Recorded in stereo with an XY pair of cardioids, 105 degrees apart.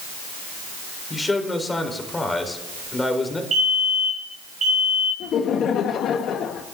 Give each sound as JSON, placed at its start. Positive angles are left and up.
{"t": 1.1, "sound": "a man speaking", "azimuth_deg": 20, "distance_m": 4.0}
{"t": 3.5, "sound": "a fire alarm", "azimuth_deg": -55, "distance_m": 6.0}
{"t": 5.2, "sound": "laughter", "azimuth_deg": 65, "distance_m": 1.2}